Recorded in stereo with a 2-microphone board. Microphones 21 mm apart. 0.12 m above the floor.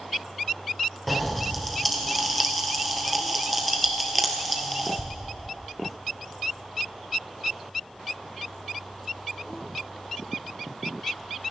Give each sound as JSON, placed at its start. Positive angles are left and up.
{"t": 1.1, "sound": "a pop", "side_deg": 5, "distance_m": 1.9}